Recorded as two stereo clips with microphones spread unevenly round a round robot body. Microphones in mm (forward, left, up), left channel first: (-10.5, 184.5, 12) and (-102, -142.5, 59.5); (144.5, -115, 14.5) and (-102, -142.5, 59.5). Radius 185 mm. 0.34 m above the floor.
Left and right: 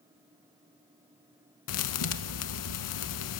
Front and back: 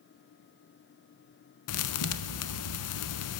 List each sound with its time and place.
1.7 s a thud: 30° left, 0.6 m